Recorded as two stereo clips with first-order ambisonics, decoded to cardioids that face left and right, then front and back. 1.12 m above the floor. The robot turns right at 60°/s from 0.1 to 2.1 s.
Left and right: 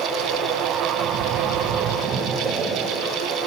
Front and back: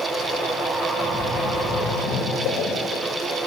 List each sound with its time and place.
0.9 s a splash: 90° right, 1.4 m; by 3.0 s 20° right, 1.4 m